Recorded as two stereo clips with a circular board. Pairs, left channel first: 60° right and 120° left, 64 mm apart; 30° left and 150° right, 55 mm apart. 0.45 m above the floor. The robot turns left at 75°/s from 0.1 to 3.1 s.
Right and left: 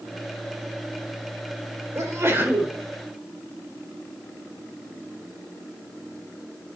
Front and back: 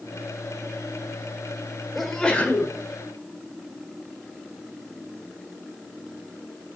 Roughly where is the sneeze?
Behind left.